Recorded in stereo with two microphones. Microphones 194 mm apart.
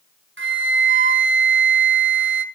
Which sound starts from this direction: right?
A flute, at 0.4 s.